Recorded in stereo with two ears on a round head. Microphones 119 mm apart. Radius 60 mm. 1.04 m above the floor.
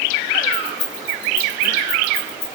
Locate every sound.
0.5 s keys jangling: 65° left (ahead or behind), 7.5 m; by 2.6 s 60° left (ahead or behind), 8.5 m